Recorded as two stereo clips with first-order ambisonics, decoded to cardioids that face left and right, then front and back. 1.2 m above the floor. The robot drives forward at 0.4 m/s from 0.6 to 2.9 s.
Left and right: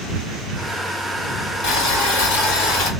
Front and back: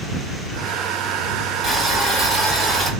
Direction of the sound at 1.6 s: 95° left.